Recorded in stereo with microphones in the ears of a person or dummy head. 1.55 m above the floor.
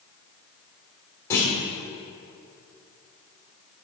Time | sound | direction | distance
1.3 | a clunk | 15° left (ahead or behind) | 1.6 m